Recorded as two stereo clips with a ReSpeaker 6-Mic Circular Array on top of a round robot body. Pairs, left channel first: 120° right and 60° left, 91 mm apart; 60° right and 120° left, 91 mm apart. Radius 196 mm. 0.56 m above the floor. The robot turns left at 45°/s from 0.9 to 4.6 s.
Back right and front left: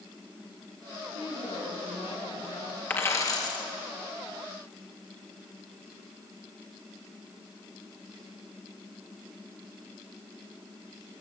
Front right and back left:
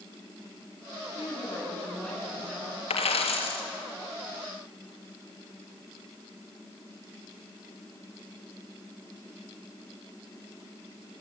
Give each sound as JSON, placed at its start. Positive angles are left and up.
{"t": 1.1, "sound": "a woman speaking", "azimuth_deg": -100, "distance_m": 9.5}
{"t": 2.9, "sound": "a dropped coin", "azimuth_deg": -50, "distance_m": 2.5}